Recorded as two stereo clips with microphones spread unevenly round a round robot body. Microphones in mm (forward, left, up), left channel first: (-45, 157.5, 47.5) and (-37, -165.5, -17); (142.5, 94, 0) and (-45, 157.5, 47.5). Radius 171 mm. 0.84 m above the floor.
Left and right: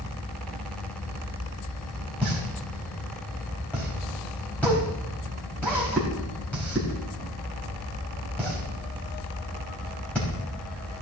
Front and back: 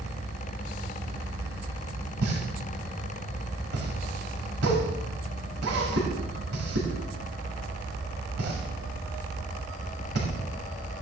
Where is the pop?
Straight behind, 4 m.